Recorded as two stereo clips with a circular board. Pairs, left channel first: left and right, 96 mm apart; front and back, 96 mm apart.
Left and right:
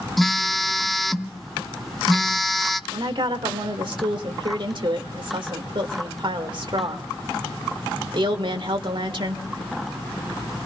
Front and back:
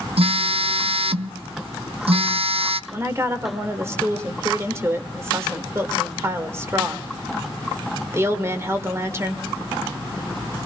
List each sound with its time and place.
0.2 s a phone buzzing: straight behind, 0.6 m
2.9 s a woman speaking: 120° right, 1.7 m